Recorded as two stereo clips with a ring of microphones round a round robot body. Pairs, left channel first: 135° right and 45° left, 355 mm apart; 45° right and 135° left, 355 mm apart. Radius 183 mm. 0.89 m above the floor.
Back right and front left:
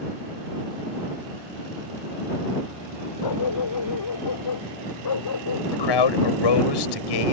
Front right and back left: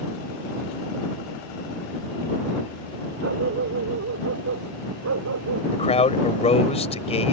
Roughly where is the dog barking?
Behind.